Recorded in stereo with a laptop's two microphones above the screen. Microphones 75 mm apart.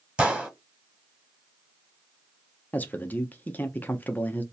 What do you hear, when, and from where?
0.2 s a gunshot: 15° right (ahead or behind), 1.2 m
2.7 s a man speaking: 25° left (ahead or behind), 0.5 m